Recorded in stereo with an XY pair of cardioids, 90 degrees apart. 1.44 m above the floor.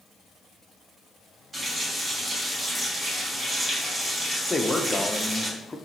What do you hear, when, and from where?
1.5 s a running tap: 35° right, 1.8 m
4.5 s a man speaking: 15° left, 0.6 m